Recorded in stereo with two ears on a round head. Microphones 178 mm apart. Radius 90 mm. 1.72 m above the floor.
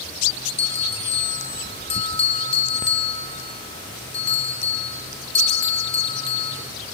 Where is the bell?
30° left (ahead or behind), 4.5 m.